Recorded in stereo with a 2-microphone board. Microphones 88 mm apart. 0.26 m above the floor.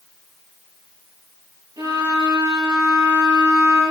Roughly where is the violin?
Right.